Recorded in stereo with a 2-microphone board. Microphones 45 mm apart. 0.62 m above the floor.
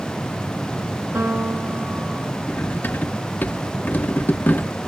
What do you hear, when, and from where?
1.1 s a piano: 60° right (ahead or behind), 6 m
2.5 s cutlery clinking: 45° left (ahead or behind), 0.5 m